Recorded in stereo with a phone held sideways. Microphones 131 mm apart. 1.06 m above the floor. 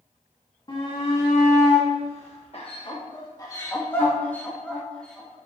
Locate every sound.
0.7 s a shout: 40° left (ahead or behind), 2.5 m; by 5.4 s 5° left (ahead or behind), 4 m